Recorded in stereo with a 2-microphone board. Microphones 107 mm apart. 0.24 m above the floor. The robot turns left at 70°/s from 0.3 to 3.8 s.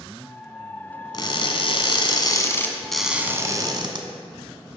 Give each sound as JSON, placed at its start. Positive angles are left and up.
{"t": 1.1, "sound": "crushing", "azimuth_deg": 130, "distance_m": 1.2}